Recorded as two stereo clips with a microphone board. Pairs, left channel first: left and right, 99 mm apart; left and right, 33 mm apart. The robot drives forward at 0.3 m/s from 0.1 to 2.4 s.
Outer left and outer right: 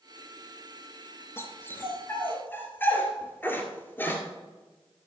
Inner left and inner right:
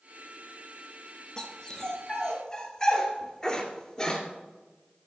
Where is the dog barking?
25° left (ahead or behind), 1.6 m; by 4.2 s 20° left (ahead or behind), 1.9 m.